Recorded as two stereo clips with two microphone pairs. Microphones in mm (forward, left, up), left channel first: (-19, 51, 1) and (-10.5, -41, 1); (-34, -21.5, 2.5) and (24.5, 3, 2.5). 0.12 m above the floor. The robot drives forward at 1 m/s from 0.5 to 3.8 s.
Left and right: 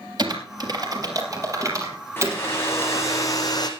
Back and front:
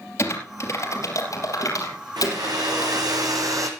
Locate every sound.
0.2 s typing on a keyboard: 120° right, 3 m; by 3.1 s 150° right, 4.5 m
2.2 s a hair dryer: 30° left, 3 m; by 3.7 s 50° left, 2 m